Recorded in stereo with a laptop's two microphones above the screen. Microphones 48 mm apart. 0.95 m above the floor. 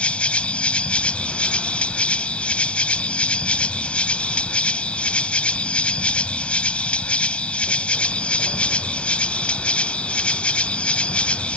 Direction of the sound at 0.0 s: 25° left (ahead or behind).